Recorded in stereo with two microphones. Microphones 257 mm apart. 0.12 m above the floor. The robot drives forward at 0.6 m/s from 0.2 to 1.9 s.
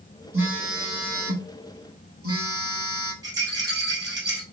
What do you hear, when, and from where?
0.3 s a phone buzzing: 50° right (ahead or behind), 2.5 m; by 3.1 s 60° right (ahead or behind), 2 m
3.2 s a rattle: 15° right (ahead or behind), 2 m